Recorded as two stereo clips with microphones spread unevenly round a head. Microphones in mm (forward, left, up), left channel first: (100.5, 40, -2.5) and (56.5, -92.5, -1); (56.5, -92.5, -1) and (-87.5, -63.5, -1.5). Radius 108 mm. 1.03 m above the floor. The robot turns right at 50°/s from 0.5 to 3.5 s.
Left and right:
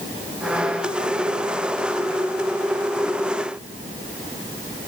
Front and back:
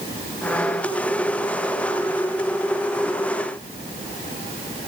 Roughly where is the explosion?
I don't hear an explosion.